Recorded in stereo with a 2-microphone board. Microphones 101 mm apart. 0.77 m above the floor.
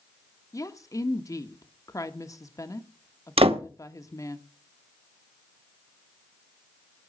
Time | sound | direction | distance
0.5 | a woman speaking | 35° left (ahead or behind) | 1.1 m
3.4 | a door slam | 80° right | 1.2 m